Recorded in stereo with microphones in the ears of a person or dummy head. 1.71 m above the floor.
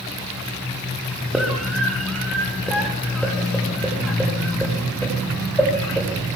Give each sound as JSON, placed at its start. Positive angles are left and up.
{"t": 1.3, "sound": "a scream", "side_deg": 0, "distance_m": 5.0}